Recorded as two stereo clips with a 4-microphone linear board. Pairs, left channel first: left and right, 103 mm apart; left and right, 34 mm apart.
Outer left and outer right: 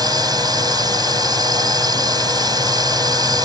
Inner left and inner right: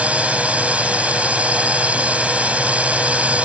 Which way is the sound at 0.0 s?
45° right (ahead or behind).